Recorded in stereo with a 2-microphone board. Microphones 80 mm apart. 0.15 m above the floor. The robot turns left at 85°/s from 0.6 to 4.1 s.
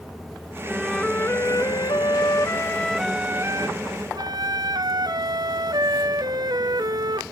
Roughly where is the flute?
Behind.